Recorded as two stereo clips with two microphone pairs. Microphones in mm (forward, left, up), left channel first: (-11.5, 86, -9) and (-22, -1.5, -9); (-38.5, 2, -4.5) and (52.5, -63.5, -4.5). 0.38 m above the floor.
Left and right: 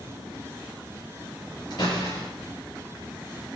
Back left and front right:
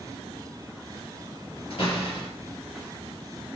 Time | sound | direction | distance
1.7 | a door slam | 105° left | 6 m